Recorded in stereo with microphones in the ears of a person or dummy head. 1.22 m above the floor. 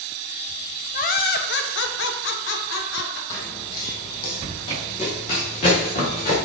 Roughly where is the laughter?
Left.